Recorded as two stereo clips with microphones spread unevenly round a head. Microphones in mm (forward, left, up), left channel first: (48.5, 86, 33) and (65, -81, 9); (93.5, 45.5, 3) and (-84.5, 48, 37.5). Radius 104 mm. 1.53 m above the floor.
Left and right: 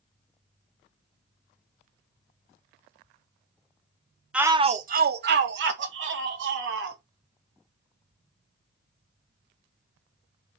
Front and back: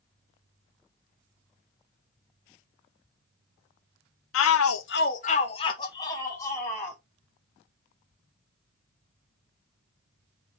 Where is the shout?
5° left, 0.6 m; by 7.0 s 80° right, 2.5 m.